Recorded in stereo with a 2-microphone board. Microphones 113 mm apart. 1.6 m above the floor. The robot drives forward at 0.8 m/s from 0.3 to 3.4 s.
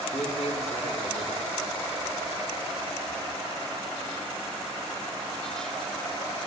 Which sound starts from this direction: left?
A man speaking, at 0.1 s.